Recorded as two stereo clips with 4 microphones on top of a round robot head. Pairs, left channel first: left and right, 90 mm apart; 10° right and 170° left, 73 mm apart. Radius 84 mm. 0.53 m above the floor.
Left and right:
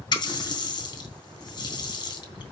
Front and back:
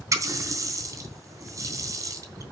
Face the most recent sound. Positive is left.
turn(degrees=130)